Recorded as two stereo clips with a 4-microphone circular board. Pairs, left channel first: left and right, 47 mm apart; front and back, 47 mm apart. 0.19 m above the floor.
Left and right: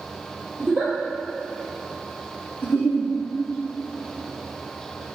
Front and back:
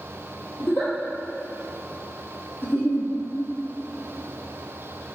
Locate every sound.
0.6 s a giggle: 20° right, 3 m
2.6 s a giggle: 50° left, 2 m